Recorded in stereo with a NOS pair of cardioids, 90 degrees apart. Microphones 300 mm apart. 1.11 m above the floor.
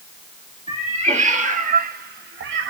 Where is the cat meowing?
20° right, 1.6 m; by 2.7 s 55° right, 0.6 m.